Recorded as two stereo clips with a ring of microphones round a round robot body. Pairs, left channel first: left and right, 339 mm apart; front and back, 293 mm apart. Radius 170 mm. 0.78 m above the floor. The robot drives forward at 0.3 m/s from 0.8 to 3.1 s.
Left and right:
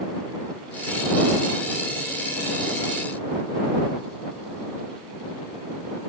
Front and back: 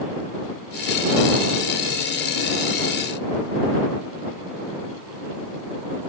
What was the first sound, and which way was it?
Only background noise.